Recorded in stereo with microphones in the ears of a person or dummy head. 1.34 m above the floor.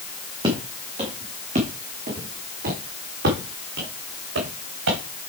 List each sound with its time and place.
0.4 s footsteps: 25° right (ahead or behind), 3.5 m; by 5.0 s 70° right (ahead or behind), 4.5 m